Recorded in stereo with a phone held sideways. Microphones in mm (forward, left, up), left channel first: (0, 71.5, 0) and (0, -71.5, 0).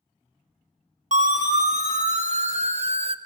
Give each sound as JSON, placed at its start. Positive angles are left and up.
{"t": 1.1, "sound": "a siren", "side_deg": -60, "distance_m": 2.0}